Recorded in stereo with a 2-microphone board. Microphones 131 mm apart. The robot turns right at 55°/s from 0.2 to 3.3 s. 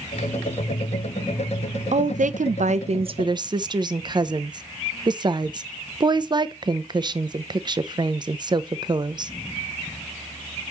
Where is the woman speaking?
115° right, 0.6 m; by 9.3 s 35° right, 0.6 m.